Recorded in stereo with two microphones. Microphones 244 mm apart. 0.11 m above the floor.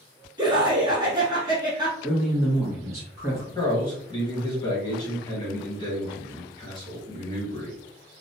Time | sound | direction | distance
0.4 | laughter | 20° right (ahead or behind) | 1.1 m
2.0 | a man speaking | 10° right (ahead or behind) | 1.1 m
3.5 | a man speaking | 20° left (ahead or behind) | 1.8 m